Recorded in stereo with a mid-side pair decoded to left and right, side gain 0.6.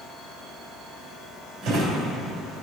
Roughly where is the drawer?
Right.